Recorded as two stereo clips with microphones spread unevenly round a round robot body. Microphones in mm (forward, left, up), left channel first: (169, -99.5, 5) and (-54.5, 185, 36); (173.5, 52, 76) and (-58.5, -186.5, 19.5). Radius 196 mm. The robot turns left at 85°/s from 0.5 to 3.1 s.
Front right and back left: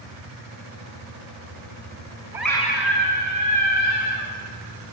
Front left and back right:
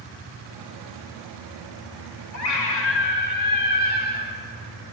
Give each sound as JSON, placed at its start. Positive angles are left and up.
{"t": 2.3, "sound": "a scream", "azimuth_deg": 45, "distance_m": 4.5}